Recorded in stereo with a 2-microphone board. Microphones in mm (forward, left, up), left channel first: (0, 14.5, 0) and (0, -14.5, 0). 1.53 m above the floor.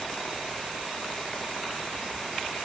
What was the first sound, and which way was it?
Only background noise.